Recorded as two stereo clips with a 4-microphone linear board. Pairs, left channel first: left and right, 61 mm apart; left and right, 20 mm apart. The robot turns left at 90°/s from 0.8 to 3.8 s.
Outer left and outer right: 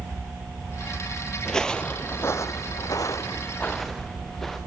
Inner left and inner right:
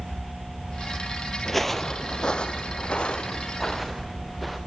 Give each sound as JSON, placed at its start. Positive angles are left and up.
{"t": 1.4, "sound": "footsteps", "side_deg": 15, "distance_m": 0.5}